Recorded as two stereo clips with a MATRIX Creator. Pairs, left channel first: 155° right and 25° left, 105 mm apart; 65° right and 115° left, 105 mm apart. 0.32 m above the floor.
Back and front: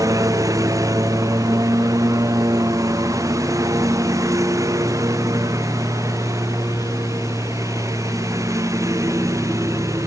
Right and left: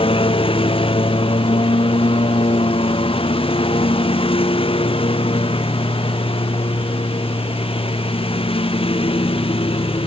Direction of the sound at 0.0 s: 35° right.